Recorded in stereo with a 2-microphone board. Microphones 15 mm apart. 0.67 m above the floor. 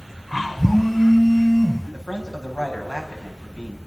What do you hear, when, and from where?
0.6 s a phone buzzing: 30° left (ahead or behind), 6 m
1.9 s a man speaking: 75° left (ahead or behind), 6 m